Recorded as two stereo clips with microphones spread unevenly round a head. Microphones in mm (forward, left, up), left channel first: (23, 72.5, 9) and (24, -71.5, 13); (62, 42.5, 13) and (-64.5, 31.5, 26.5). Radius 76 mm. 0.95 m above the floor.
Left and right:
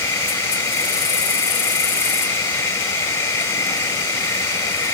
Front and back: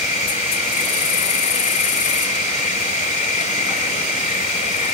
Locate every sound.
0.0 s an insect: 25° left